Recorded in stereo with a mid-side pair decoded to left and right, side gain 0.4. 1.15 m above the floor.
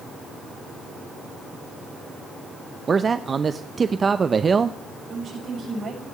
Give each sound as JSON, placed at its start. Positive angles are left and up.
{"t": 2.9, "sound": "a man speaking", "azimuth_deg": -40, "distance_m": 0.6}
{"t": 5.1, "sound": "a woman speaking", "azimuth_deg": -65, "distance_m": 6.5}